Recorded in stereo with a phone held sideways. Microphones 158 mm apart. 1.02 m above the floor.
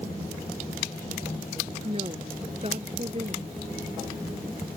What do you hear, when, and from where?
1.8 s a woman speaking: 40° right (ahead or behind)